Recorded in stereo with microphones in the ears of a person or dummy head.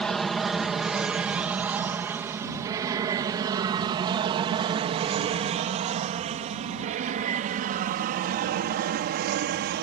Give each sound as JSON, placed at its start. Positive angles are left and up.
{"t": 0.0, "sound": "an aircraft", "side_deg": 0}